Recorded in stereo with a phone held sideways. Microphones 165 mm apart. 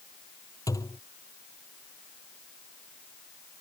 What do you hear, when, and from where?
0.7 s a thud: 20° left (ahead or behind)